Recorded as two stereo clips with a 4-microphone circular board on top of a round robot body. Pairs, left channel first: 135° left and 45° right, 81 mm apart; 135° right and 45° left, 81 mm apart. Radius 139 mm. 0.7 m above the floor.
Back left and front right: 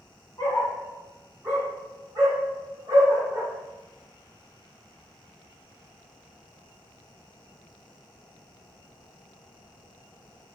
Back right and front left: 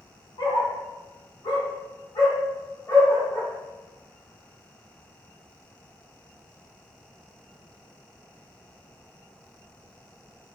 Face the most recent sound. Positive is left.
turn(degrees=-90)